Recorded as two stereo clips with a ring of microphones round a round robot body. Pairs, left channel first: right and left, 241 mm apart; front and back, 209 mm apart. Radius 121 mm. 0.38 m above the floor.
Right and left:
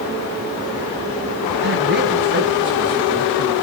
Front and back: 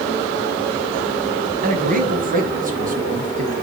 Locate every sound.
1.6 s a man speaking: 135° left, 3 m; by 3.5 s 130° left, 5 m